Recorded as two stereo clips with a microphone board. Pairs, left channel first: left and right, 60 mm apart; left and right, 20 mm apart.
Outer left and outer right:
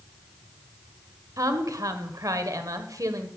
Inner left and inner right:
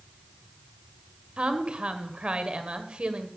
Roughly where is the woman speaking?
Right.